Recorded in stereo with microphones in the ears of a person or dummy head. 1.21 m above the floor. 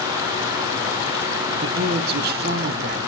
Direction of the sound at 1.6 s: 50° right (ahead or behind).